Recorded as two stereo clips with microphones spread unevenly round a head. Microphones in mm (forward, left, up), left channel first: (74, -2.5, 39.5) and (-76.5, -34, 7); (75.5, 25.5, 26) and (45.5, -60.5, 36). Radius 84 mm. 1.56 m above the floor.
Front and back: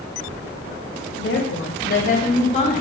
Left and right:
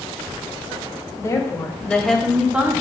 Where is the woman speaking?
15° left, 1.0 m; by 2.8 s 40° right, 1.0 m.